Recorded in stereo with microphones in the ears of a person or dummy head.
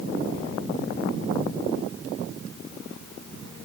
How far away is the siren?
No siren in this recording.